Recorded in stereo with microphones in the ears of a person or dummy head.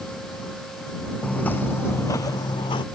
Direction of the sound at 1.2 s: 10° left (ahead or behind).